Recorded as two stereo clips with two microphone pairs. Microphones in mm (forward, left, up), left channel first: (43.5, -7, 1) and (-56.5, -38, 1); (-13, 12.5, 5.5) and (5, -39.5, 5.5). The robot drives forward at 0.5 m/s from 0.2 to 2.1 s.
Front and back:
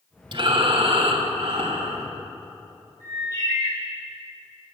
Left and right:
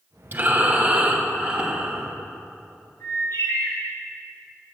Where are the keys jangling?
I don't hear keys jangling.